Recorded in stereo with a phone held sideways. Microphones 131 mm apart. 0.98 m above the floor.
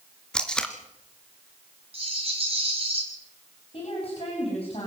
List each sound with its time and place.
0.3 s tape being pulled: 5° left (ahead or behind), 3 m
1.9 s a rattle: 50° right (ahead or behind), 6 m
3.7 s a woman speaking: 45° left (ahead or behind), 8 m